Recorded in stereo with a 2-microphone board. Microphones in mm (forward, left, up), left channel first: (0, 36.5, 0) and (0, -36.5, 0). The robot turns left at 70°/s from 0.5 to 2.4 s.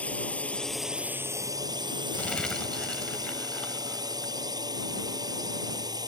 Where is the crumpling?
20° left (ahead or behind); by 4.3 s 10° left (ahead or behind).